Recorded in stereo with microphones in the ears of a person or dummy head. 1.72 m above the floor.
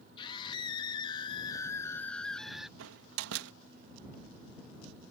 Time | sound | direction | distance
0.2 | a scream | 30° left (ahead or behind) | ?
2.8 | a door slam | 75° right (ahead or behind) | ?